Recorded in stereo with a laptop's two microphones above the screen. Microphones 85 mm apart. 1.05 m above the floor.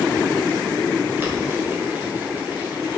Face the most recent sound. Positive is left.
turn(degrees=-20)  # may be behind; listen again after turning